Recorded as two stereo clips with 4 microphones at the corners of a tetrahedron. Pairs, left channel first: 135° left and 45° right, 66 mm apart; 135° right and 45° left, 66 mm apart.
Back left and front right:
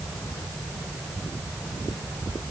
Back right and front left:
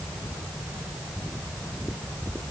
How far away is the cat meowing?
I don't hear a cat meowing.